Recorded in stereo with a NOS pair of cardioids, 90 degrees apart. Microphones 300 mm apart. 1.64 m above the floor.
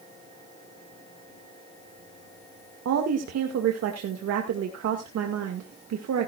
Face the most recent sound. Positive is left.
turn(degrees=-65)